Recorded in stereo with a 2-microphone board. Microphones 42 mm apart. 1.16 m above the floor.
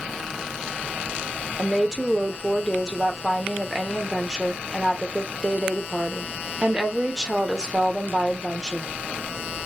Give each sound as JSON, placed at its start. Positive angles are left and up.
{"t": 1.6, "sound": "a woman speaking", "side_deg": -15, "distance_m": 0.8}